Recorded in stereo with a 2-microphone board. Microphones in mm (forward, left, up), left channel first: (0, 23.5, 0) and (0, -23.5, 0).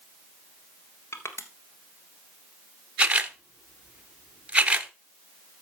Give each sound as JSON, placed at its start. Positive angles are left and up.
{"t": 1.1, "sound": "crushing", "side_deg": 65, "distance_m": 1.4}
{"t": 3.0, "sound": "a camera shutter", "side_deg": -25, "distance_m": 0.8}